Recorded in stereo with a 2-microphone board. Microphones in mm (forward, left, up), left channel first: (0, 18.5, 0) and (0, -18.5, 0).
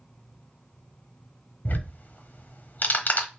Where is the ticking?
50° left (ahead or behind), 0.9 m.